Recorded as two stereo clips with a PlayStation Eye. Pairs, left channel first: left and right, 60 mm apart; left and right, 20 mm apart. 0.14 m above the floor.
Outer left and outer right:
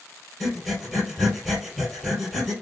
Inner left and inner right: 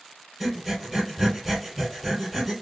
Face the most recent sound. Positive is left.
turn(degrees=0)  # may be behind; listen again after turning